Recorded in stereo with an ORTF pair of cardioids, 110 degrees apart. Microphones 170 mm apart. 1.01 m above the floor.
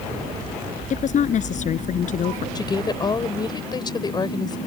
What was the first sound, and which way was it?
A woman speaking, 50° left.